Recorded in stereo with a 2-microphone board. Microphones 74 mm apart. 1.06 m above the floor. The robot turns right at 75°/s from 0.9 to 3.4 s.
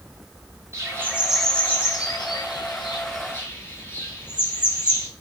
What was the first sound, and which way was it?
A bird, 35° right (ahead or behind).